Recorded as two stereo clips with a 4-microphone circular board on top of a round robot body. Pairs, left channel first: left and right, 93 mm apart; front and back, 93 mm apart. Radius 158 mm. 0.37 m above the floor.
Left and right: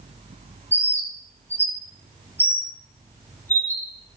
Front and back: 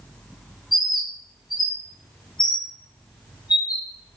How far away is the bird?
About 2 m.